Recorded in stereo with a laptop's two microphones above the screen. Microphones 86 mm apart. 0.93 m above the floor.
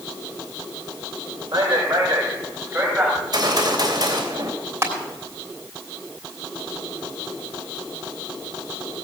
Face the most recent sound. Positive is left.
turn(degrees=-30)  # may be behind; listen again after turning